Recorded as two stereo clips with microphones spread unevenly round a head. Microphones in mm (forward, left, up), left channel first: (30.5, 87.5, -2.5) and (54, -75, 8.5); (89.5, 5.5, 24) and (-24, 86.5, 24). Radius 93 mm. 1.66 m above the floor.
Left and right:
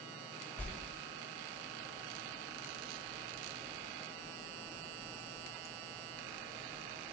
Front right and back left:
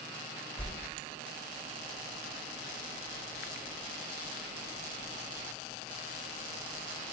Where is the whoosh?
15° left, 1.1 m.